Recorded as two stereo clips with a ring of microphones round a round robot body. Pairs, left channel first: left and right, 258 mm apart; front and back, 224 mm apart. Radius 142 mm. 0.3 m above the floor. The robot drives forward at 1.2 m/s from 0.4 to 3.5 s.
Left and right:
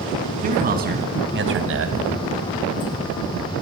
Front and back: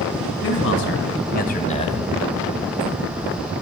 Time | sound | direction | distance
0.4 | a man speaking | 30° right | 3 m